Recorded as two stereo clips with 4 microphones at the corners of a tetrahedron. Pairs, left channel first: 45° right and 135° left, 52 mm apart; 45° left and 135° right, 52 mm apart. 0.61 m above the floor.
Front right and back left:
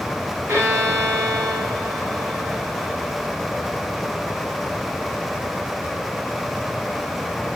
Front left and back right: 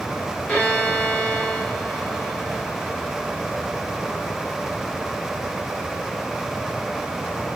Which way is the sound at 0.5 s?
105° left.